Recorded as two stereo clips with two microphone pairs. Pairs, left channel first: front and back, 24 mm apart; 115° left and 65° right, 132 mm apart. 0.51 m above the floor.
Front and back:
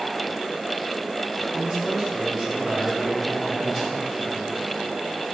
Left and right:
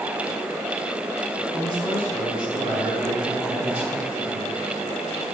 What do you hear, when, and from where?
1.5 s a man speaking: 120° right, 3 m; by 4.5 s 105° right, 7 m